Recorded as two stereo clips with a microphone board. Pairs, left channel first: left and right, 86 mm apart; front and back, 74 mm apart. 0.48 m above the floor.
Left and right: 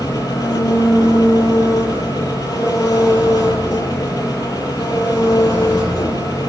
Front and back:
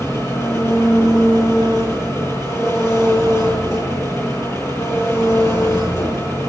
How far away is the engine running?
About 9.5 m.